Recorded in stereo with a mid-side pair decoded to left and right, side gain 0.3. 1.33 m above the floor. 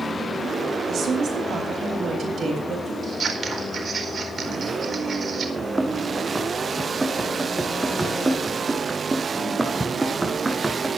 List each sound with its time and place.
0.9 s a woman speaking: 65° right, 8 m
3.0 s scissors: 60° right, 4 m
5.6 s running footsteps: 20° right, 4.5 m